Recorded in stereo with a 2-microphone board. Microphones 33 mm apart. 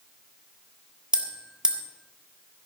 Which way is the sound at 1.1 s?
30° right (ahead or behind).